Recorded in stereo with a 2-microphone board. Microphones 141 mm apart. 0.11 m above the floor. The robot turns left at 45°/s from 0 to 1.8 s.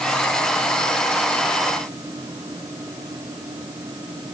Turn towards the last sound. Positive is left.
No sound to turn to.